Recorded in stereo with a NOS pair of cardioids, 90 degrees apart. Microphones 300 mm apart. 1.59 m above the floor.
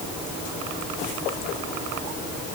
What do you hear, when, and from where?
Only background noise.